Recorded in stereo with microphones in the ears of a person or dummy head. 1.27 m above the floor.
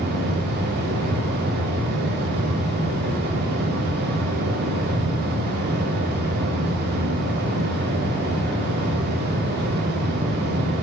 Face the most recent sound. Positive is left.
turn(degrees=-55)  # may be behind; listen again after turning